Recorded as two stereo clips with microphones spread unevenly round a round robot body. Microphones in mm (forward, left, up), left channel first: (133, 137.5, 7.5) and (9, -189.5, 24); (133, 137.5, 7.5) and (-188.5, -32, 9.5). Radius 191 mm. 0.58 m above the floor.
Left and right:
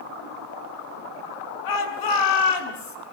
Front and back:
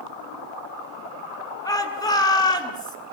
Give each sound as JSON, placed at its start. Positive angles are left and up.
{"t": 1.6, "sound": "a shout", "azimuth_deg": 105, "distance_m": 6.5}